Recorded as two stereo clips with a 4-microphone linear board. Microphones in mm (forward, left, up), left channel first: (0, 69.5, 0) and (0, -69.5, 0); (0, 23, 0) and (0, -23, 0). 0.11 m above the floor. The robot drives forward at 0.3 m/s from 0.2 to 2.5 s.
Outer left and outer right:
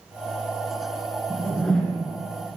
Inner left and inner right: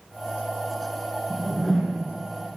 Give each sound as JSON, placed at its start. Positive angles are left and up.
{"t": 1.3, "sound": "a whoosh", "side_deg": 5, "distance_m": 1.6}